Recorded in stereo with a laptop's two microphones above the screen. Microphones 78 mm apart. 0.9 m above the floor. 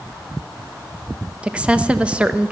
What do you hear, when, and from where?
1.4 s a woman speaking: 15° right (ahead or behind), 0.9 m